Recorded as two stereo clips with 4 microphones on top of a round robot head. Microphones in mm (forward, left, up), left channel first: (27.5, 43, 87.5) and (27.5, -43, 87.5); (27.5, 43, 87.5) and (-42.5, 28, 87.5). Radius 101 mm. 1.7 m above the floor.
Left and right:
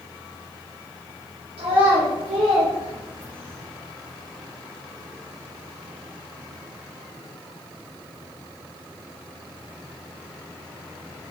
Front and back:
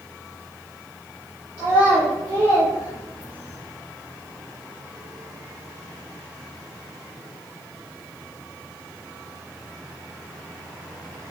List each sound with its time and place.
1.6 s a child speaking: 100° right, 0.5 m